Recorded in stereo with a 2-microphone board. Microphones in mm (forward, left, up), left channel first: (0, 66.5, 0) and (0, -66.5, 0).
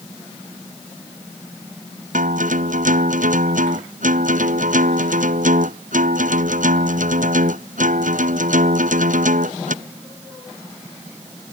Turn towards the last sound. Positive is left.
turn(degrees=-80)